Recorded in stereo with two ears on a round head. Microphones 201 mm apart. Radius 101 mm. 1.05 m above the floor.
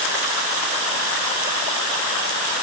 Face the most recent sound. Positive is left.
No sound to turn to.